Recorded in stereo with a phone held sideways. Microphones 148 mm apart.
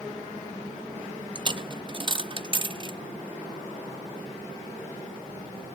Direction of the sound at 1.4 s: 35° right (ahead or behind).